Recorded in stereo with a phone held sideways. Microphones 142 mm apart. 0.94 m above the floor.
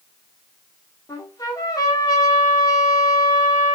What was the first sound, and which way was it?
A trumpet, 25° left (ahead or behind).